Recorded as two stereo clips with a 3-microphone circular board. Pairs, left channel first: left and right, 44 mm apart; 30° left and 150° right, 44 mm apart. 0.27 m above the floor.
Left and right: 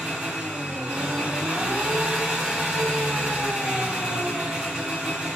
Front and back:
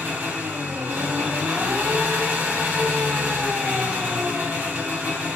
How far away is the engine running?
About 1.6 m.